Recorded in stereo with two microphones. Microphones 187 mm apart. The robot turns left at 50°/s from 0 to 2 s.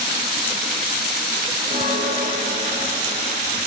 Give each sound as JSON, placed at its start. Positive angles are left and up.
{"t": 1.7, "sound": "a bell", "side_deg": 15, "distance_m": 5.5}